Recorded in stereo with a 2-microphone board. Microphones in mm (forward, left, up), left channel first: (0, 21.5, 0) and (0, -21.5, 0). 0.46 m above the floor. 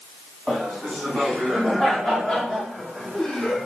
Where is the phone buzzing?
I don't hear a phone buzzing.